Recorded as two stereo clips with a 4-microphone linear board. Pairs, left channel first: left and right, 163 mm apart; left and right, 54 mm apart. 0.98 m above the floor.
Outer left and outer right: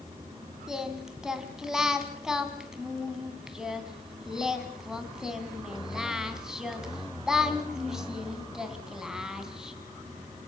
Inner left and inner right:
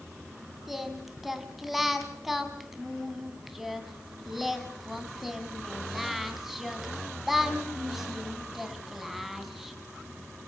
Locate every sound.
0.7 s singing: 5° right (ahead or behind), 2.5 m